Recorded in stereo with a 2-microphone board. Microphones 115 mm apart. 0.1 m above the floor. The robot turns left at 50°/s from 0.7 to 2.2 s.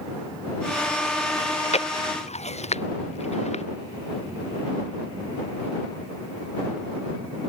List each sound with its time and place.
1.4 s chewing: 55° left (ahead or behind); by 3.6 s 85° left